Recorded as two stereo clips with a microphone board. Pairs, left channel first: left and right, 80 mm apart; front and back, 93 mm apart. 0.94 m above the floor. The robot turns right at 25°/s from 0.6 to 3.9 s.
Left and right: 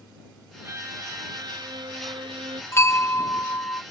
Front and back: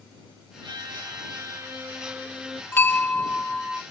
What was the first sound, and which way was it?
A violin, 145° right.